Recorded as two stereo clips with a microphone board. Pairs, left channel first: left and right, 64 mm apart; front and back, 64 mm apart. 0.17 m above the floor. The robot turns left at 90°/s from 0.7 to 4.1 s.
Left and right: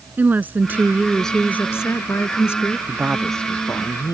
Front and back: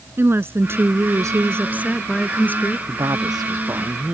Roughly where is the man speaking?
Behind right.